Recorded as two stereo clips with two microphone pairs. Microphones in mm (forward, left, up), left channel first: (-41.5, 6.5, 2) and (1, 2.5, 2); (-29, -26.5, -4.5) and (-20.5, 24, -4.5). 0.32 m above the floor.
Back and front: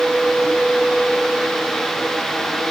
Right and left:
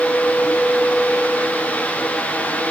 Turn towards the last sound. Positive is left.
No sound to turn to.